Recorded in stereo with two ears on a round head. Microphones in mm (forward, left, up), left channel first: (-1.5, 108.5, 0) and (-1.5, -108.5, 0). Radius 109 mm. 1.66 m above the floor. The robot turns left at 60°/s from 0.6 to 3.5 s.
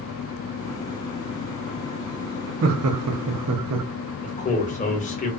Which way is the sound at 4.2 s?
30° left (ahead or behind).